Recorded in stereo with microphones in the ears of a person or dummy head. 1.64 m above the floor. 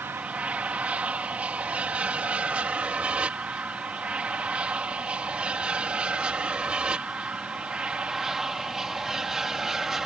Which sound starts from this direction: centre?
An aircraft, at 0.0 s.